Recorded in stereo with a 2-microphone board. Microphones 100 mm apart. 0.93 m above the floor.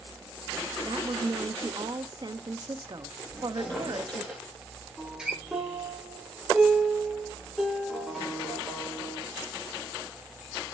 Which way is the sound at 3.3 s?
5° right (ahead or behind).